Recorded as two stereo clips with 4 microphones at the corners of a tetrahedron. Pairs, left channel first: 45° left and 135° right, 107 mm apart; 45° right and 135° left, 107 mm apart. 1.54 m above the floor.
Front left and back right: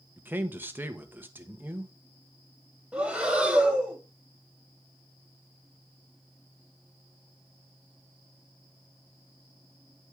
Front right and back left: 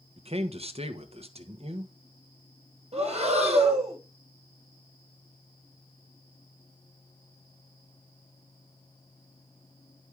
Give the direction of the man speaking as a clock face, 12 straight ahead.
7 o'clock.